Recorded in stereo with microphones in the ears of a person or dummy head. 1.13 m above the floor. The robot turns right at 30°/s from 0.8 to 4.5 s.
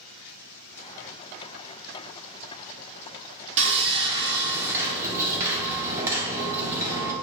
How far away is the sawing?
About 0.9 m.